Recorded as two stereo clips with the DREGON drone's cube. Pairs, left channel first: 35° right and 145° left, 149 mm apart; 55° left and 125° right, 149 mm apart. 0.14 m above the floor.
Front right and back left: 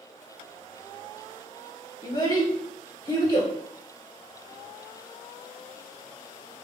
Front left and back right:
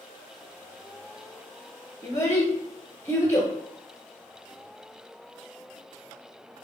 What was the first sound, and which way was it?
A child speaking, straight ahead.